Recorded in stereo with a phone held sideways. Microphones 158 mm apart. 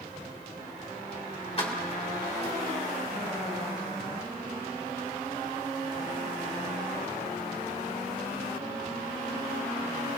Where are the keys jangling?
40° left (ahead or behind), 2.5 m.